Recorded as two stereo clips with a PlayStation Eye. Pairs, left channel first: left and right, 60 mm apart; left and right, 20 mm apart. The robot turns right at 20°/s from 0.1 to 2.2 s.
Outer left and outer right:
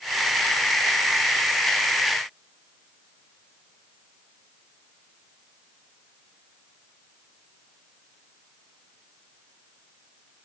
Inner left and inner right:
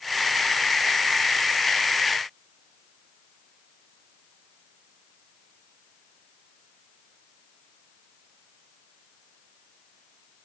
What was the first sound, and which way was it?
Only background noise.